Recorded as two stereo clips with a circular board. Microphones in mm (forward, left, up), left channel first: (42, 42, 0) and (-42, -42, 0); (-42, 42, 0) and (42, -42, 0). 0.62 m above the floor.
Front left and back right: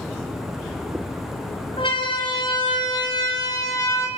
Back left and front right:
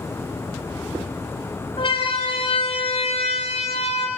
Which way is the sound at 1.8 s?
90° left.